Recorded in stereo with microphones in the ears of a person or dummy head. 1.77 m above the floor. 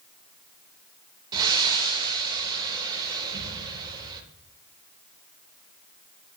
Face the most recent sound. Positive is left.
turn(degrees=-20)  # may be behind; listen again after turning